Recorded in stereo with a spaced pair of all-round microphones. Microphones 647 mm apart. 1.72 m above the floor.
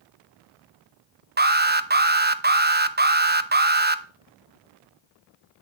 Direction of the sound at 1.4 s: 15° right (ahead or behind).